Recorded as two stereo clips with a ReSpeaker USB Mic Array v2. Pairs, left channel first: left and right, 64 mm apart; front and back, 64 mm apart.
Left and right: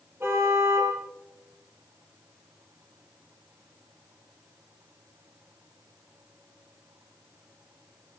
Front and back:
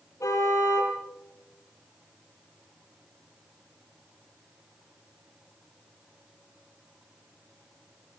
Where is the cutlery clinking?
I don't hear cutlery clinking.